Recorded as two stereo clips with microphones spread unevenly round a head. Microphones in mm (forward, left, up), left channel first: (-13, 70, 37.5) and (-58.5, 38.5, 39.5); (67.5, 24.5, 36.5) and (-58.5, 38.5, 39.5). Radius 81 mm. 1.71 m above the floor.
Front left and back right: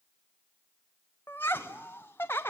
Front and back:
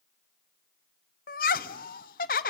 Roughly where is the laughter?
Ahead right.